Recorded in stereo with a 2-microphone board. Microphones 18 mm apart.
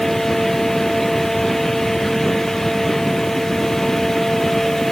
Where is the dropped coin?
I don't hear a dropped coin.